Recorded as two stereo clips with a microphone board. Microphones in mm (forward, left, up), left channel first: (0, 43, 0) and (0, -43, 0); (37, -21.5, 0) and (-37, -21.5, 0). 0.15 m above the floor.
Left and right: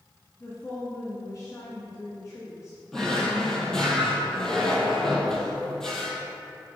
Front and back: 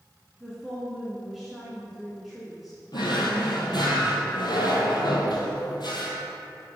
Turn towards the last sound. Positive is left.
turn(degrees=5)